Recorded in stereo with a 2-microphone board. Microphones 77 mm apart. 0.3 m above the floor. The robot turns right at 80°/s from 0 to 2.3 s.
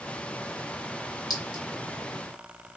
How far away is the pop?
I don't hear a pop.